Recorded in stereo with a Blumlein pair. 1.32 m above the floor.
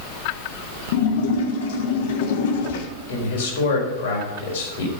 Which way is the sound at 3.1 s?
60° left.